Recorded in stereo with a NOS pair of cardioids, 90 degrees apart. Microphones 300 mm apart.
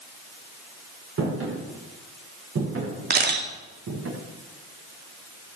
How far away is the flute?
I don't hear a flute.